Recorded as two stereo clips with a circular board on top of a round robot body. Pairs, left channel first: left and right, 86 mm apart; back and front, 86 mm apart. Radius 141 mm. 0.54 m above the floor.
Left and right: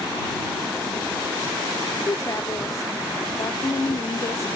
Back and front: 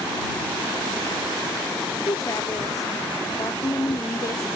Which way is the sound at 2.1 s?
135° left.